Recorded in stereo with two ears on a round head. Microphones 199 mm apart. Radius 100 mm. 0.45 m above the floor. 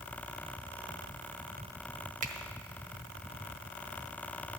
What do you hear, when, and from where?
2.2 s a finger snap: 35° right (ahead or behind), 1.0 m